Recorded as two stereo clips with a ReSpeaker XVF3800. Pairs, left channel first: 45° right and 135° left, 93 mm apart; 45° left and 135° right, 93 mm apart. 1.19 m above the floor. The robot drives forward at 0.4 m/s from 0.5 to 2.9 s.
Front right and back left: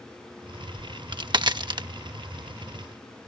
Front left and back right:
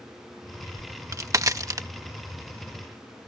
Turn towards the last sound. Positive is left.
turn(degrees=175)